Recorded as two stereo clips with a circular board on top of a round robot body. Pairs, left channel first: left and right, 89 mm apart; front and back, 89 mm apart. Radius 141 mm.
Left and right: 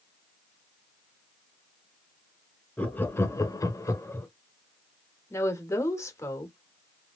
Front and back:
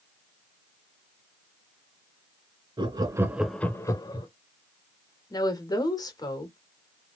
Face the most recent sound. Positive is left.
turn(degrees=35)